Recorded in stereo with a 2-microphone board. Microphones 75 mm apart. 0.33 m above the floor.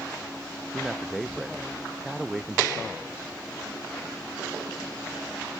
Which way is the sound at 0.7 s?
5° right (ahead or behind).